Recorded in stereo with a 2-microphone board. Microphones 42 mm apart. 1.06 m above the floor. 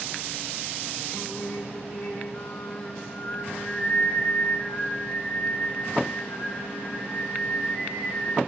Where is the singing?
40° left (ahead or behind), 2.5 m.